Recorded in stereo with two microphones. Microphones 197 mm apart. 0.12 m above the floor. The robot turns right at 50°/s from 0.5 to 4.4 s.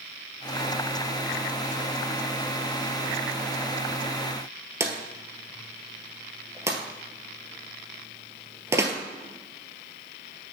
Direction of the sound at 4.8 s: 15° right (ahead or behind).